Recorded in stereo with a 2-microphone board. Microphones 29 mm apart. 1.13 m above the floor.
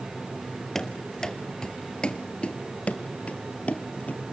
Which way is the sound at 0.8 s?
10° left (ahead or behind).